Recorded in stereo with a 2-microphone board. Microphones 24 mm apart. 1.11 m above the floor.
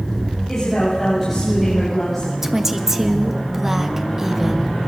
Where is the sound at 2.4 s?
20° right (ahead or behind), 1.7 m.